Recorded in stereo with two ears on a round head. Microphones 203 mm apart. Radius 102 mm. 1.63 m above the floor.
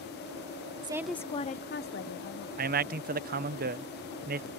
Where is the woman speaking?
20° right (ahead or behind); by 2.5 s 60° left (ahead or behind).